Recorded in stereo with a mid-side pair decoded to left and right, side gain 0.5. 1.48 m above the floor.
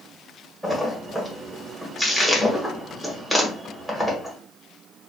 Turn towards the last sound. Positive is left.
turn(degrees=-5)